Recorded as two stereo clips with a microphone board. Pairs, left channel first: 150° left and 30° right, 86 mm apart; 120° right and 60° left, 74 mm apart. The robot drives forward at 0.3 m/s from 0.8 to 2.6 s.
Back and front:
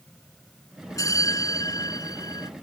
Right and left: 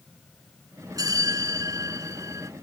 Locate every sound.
1.0 s a bell: 100° left; by 2.5 s 110° left